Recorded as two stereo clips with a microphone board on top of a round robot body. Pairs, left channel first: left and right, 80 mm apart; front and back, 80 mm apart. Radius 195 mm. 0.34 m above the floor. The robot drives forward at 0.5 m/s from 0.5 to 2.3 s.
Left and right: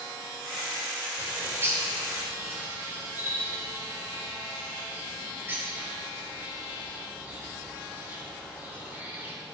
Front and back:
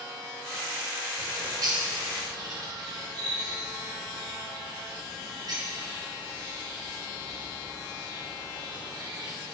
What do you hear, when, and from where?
1.2 s a bird: 150° right, 3 m; by 9.3 s 155° right, 3.5 m